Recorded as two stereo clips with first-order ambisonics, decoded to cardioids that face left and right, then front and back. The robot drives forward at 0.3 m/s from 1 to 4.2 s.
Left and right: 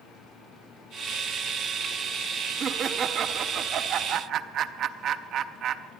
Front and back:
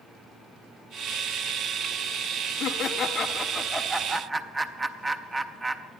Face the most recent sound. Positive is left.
turn(degrees=-105)